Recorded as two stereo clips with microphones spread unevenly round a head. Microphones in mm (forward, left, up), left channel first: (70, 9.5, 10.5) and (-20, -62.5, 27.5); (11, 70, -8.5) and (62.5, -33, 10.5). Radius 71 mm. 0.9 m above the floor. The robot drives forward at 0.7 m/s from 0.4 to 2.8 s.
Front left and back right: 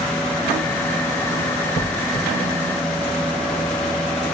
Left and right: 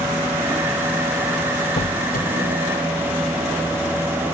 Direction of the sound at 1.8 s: 80° left.